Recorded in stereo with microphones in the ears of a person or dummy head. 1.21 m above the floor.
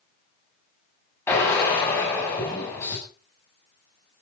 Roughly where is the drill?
Centre.